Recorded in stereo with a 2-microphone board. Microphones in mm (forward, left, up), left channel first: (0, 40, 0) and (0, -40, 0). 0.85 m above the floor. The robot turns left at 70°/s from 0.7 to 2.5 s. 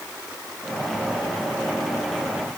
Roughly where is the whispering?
I don't hear whispering.